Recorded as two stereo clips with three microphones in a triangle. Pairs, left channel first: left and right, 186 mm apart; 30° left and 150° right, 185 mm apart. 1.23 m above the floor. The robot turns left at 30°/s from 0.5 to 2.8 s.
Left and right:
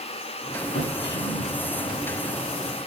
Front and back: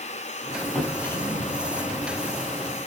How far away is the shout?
I don't hear a shout.